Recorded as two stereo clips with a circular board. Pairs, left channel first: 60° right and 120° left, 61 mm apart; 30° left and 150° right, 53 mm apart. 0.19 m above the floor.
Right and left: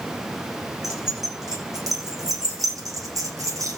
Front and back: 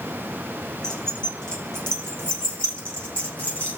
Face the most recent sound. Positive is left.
turn(degrees=90)